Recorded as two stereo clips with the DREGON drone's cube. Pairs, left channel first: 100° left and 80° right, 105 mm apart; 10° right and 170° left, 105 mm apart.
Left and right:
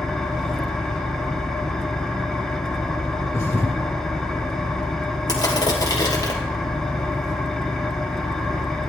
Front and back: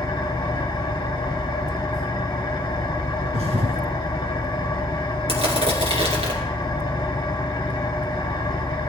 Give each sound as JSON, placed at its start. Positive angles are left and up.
{"t": 0.0, "sound": "an engine running", "azimuth_deg": 15, "distance_m": 1.3}
{"t": 3.3, "sound": "a thud", "azimuth_deg": 165, "distance_m": 1.8}
{"t": 5.3, "sound": "crushing", "azimuth_deg": 155, "distance_m": 2.5}